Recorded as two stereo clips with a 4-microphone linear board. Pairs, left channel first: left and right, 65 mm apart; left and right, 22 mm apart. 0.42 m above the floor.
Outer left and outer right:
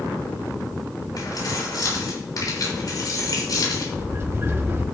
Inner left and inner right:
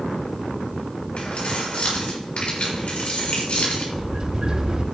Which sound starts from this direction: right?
A sliding door, at 3.9 s.